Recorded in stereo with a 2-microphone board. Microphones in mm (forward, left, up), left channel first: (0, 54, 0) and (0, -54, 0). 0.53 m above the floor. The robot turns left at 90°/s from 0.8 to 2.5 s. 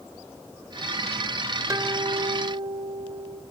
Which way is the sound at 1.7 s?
30° right.